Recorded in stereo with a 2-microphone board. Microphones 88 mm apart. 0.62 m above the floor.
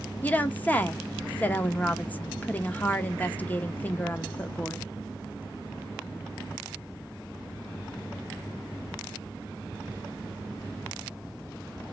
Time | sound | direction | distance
0.2 | a woman speaking | 15° left (ahead or behind) | 0.6 m